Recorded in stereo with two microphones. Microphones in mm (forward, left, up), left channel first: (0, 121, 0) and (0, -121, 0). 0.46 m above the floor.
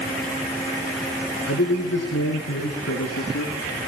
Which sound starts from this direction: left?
A man speaking, at 1.5 s.